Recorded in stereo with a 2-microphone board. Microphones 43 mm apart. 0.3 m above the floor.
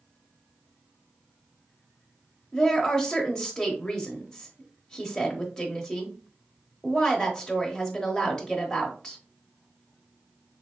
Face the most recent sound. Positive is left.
turn(degrees=15)  # may be behind; listen again after turning